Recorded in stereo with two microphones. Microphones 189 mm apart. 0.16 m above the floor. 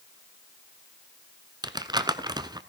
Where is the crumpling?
20° right (ahead or behind), 0.7 m.